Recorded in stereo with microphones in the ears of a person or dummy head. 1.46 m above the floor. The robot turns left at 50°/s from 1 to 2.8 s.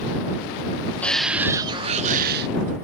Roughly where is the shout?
Ahead.